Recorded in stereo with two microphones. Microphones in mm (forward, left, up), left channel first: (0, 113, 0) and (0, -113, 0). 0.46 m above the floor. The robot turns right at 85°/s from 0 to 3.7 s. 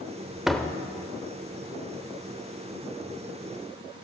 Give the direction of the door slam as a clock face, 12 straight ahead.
12 o'clock.